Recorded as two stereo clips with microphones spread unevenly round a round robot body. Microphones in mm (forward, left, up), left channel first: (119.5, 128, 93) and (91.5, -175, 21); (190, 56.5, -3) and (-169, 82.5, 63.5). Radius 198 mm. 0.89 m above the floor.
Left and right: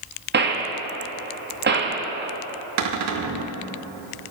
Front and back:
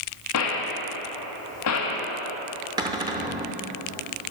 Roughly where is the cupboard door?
Behind right.